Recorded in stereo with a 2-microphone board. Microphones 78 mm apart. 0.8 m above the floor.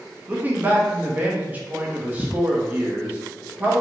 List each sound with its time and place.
0.3 s a man speaking: 20° right (ahead or behind), 0.5 m